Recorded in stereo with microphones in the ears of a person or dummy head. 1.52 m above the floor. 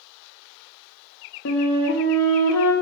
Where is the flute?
65° left (ahead or behind), 0.6 m.